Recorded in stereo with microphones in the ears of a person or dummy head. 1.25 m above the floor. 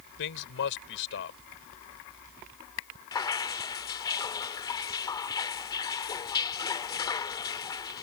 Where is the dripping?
20° left (ahead or behind).